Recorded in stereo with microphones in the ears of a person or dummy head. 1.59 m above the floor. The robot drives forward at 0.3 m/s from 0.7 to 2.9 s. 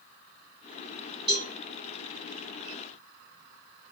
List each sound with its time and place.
1.3 s a cowbell: 25° right (ahead or behind), 1.4 m; by 1.5 s 30° right (ahead or behind), 1.4 m